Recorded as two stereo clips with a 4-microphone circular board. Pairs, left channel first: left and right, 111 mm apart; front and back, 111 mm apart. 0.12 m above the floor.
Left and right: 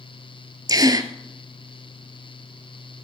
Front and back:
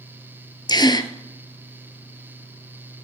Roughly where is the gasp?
Ahead right.